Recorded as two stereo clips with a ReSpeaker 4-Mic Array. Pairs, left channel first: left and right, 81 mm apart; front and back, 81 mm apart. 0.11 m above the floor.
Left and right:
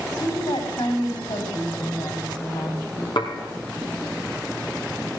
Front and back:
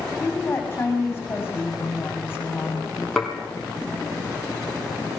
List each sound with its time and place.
0.2 s a woman speaking: 65° left, 7 m
3.2 s dishes clattering: 90° left, 2.5 m